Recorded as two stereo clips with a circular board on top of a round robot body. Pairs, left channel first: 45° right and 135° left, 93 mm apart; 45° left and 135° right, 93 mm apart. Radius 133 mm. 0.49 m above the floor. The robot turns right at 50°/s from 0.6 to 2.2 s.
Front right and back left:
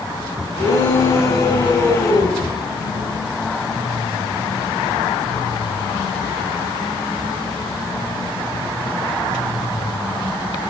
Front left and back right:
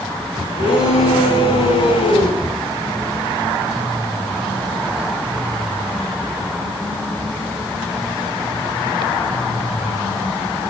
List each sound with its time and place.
0.6 s a shout: 65° right, 7 m; by 2.4 s 15° left, 7 m